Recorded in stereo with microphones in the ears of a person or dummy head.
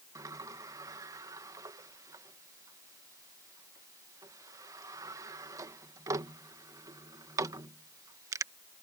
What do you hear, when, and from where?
0.1 s a sliding door: 20° right (ahead or behind)